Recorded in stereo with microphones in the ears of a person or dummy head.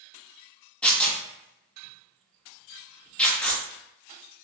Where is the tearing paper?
5° left (ahead or behind), 0.5 m.